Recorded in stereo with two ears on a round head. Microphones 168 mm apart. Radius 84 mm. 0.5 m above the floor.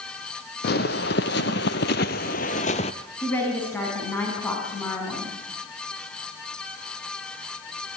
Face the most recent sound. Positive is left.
turn(degrees=10)  # may be behind; listen again after turning